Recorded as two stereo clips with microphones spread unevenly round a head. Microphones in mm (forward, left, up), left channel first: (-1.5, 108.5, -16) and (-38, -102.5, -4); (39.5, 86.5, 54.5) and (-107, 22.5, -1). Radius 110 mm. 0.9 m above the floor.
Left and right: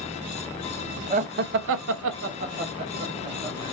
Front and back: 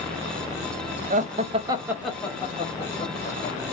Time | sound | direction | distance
1.1 | laughter | 155° right | 0.8 m